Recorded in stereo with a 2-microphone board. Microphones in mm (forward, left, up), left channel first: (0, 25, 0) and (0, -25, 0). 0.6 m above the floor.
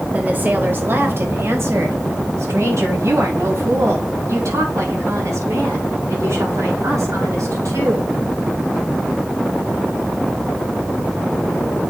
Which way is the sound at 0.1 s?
30° right (ahead or behind).